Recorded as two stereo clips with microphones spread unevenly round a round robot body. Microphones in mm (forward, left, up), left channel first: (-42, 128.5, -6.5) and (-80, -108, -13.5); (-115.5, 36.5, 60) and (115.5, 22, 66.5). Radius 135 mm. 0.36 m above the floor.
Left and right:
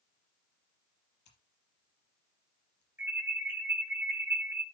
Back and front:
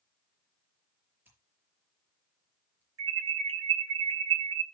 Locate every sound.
1.2 s scissors: 80° left, 5.5 m
3.0 s an alarm: 20° right, 3.5 m